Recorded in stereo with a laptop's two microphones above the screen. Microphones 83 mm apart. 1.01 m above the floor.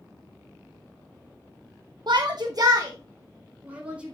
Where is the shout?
60° right (ahead or behind), 0.8 m; by 4.2 s 15° right (ahead or behind), 1.8 m.